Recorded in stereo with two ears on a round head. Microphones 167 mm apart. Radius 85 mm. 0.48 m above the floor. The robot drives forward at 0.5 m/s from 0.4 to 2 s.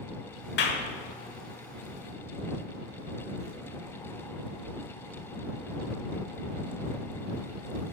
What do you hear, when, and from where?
0.6 s a clap: 65° left (ahead or behind), 1.4 m